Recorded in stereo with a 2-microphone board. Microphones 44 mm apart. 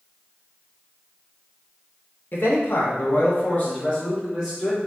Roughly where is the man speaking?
Left.